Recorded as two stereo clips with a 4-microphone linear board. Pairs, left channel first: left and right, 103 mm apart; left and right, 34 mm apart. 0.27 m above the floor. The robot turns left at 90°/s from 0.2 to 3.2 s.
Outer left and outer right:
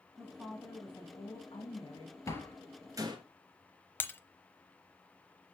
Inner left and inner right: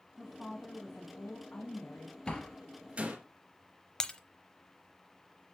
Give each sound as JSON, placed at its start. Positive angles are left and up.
{"t": 0.2, "sound": "a woman speaking", "azimuth_deg": -145, "distance_m": 2.0}
{"t": 2.3, "sound": "a door slam", "side_deg": 30, "distance_m": 3.0}
{"t": 4.0, "sound": "breaking glass", "side_deg": 20, "distance_m": 0.9}